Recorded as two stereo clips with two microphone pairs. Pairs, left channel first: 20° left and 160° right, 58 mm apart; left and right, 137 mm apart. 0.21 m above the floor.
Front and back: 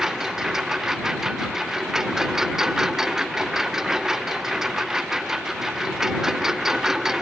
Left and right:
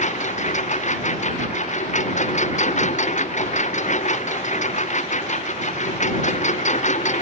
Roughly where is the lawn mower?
Behind left.